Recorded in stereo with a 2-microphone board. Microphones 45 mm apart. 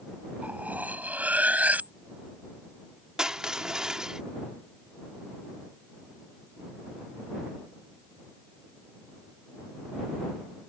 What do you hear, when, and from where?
0.4 s cutlery clinking: 35° right (ahead or behind)
3.2 s crushing: 15° right (ahead or behind)